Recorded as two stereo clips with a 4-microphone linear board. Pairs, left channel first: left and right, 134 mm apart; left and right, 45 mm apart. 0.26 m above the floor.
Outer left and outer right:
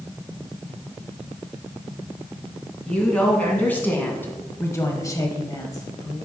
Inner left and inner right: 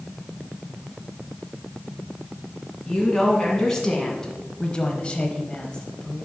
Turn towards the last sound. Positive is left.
turn(degrees=20)  # may be behind; listen again after turning